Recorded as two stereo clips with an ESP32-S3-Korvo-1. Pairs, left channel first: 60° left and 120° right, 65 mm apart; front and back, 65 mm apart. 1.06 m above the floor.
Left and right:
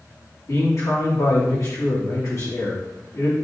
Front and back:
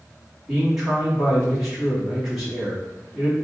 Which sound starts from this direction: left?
A man speaking, at 0.5 s.